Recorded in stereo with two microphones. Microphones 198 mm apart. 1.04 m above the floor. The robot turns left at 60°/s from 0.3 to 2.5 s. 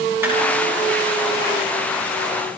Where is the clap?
10° right (ahead or behind), 9.5 m.